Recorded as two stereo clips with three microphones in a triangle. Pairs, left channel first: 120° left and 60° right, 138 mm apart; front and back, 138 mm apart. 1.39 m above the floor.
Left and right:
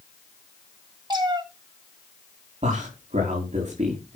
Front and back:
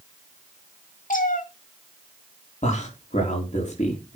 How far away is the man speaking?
About 3.5 m.